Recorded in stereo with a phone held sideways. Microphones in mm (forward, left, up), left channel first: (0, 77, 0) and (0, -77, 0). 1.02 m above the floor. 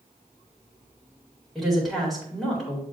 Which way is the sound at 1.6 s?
Centre (ahead or behind).